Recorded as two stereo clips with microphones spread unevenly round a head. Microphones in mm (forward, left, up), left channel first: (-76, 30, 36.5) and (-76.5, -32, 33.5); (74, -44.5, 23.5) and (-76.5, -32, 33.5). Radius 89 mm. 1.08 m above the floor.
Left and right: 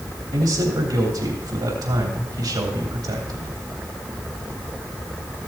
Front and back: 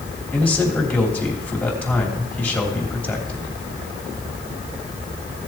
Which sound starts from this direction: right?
A man speaking, at 0.3 s.